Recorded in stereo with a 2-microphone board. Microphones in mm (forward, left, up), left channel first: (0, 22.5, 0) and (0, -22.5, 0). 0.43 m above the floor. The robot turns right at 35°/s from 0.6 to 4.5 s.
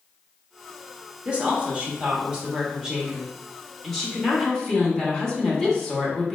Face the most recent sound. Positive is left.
turn(degrees=10)  # may be behind; listen again after turning